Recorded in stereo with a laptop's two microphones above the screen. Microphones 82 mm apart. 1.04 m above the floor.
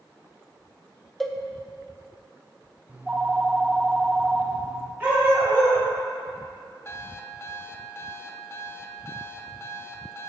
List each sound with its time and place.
1.2 s a cowbell: 5° left (ahead or behind), 0.8 m
2.9 s a phone ringing: 15° right (ahead or behind), 1.1 m
5.0 s a dog barking: 25° right (ahead or behind), 3 m
6.8 s an alarm clock: 30° left (ahead or behind), 0.6 m